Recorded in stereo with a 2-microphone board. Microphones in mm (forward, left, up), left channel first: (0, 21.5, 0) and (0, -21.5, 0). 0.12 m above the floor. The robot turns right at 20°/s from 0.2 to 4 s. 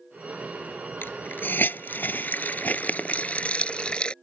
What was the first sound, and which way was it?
A hiss, 50° left (ahead or behind).